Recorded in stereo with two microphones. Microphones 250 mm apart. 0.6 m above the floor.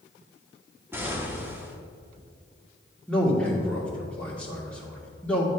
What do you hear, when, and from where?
0.9 s an explosion: 10° right (ahead or behind), 0.9 m
3.1 s a man speaking: 5° left (ahead or behind), 1.7 m